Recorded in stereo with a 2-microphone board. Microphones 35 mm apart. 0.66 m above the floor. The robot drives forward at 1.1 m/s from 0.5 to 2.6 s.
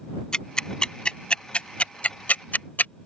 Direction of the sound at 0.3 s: 25° left (ahead or behind).